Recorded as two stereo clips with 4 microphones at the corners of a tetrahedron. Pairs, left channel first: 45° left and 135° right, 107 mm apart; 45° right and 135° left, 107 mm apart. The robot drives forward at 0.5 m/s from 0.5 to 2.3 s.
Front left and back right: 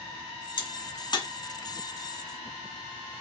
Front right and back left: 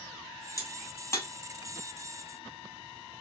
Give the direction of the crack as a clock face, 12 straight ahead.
12 o'clock.